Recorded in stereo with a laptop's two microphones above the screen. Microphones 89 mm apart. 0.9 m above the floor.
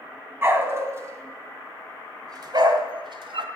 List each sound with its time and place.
0.4 s a dog barking: 25° right (ahead or behind), 2.5 m; by 3.5 s 70° right (ahead or behind), 1.8 m